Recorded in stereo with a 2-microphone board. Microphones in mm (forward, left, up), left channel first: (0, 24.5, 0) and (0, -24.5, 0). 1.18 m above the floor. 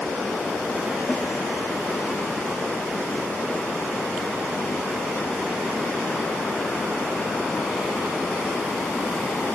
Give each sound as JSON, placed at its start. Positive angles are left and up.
{"t": 1.1, "sound": "a snare drum", "side_deg": 30, "distance_m": 2.5}